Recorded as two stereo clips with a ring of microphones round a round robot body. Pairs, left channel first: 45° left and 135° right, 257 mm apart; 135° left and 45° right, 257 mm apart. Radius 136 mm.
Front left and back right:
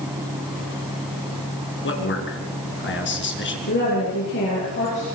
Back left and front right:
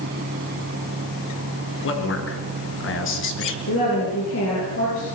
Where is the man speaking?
90° left, 5 m.